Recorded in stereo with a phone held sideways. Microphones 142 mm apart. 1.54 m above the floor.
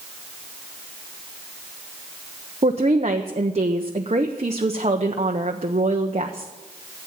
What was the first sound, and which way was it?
A woman speaking, 50° right (ahead or behind).